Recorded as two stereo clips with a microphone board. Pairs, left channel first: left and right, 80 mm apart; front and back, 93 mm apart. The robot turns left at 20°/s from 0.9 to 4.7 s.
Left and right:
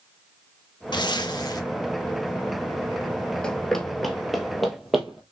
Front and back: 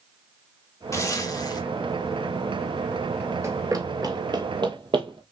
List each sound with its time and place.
0.9 s a zipper: 60° left, 0.9 m; by 1.6 s 45° left, 0.9 m
3.4 s running footsteps: 160° left, 0.8 m; by 5.2 s 175° right, 1.4 m